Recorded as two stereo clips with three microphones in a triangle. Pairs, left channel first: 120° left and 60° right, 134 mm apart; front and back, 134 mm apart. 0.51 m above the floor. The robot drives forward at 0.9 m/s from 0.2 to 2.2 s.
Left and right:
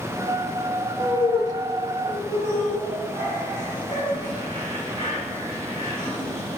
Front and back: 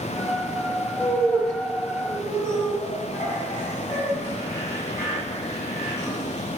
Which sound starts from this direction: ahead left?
Laughter, at 1.0 s.